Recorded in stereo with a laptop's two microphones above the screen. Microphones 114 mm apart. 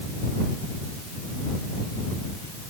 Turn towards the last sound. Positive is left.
No sound to turn to.